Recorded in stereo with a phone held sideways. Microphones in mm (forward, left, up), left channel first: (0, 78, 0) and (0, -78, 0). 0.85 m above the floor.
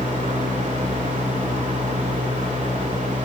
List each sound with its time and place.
0.0 s a fan: 50° right (ahead or behind), 1.9 m